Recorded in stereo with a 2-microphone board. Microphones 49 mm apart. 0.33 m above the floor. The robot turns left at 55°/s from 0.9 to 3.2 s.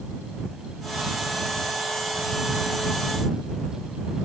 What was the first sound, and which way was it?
Only background noise.